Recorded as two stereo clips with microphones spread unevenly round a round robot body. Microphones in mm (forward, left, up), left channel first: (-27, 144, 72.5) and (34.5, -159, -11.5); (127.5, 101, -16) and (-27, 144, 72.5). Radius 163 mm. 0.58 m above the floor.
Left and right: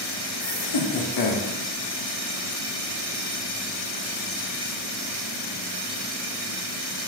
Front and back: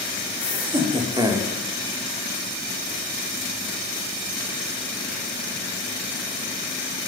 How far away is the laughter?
About 2.5 m.